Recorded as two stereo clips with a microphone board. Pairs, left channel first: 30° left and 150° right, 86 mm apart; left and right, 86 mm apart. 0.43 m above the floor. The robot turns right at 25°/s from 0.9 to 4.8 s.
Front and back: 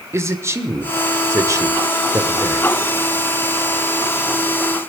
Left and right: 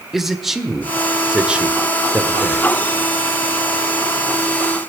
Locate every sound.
0.1 s a man speaking: 175° right, 1.4 m; by 2.7 s 130° right, 1.4 m